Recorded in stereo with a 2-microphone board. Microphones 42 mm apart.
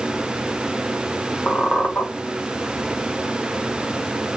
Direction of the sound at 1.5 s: 45° left (ahead or behind).